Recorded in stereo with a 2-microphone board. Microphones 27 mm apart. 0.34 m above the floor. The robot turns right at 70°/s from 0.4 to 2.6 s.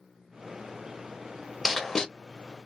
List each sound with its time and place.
1.6 s writing: centre (ahead or behind), 0.5 m; by 2.0 s 20° left (ahead or behind), 0.5 m